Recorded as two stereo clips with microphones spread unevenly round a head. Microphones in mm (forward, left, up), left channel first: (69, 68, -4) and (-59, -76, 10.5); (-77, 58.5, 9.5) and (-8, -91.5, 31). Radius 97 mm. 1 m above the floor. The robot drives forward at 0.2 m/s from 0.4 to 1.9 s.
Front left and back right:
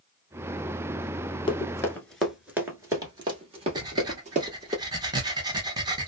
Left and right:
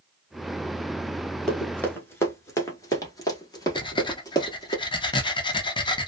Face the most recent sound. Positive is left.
turn(degrees=160)